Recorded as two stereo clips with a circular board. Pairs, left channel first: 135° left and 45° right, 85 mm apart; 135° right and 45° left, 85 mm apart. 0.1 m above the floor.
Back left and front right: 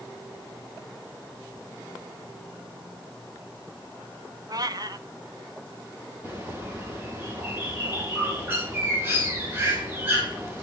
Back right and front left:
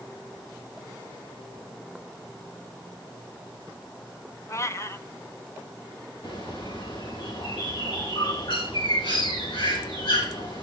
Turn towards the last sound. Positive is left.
turn(degrees=-110)